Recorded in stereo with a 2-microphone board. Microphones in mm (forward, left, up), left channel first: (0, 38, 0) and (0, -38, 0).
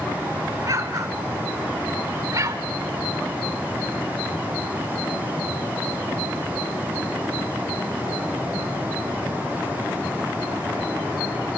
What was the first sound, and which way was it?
An explosion, 45° right (ahead or behind).